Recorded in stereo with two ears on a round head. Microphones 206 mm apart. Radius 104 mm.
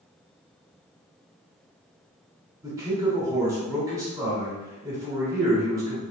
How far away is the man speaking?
About 1.0 m.